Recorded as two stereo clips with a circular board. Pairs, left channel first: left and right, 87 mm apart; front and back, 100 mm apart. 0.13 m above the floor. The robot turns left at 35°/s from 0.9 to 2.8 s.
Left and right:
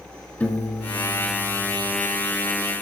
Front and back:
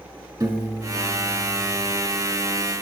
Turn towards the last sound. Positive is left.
turn(degrees=85)